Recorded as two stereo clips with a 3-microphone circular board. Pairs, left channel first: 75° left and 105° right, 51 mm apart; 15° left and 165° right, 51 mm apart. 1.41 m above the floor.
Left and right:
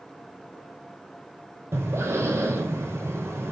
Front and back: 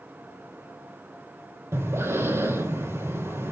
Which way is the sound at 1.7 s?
135° right.